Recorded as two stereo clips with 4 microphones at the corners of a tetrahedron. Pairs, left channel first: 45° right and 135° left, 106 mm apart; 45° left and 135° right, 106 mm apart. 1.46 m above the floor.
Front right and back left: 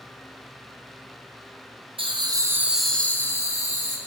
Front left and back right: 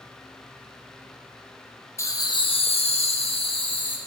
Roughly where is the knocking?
I don't hear knocking.